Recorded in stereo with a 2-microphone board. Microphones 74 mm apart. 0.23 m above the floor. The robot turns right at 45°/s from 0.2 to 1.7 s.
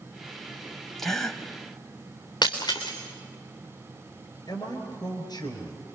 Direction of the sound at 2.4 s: 75° left (ahead or behind).